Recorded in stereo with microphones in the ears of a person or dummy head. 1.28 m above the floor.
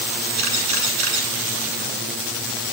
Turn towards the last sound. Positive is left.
turn(degrees=-80)